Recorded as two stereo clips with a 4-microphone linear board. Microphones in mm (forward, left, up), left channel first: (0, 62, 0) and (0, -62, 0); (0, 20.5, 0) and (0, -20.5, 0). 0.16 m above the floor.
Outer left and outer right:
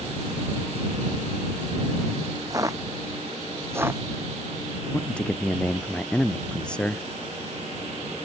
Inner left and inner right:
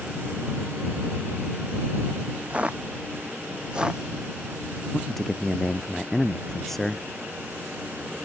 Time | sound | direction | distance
2.5 | footsteps | 25° right (ahead or behind) | ?
4.9 | a man speaking | 10° left (ahead or behind) | ?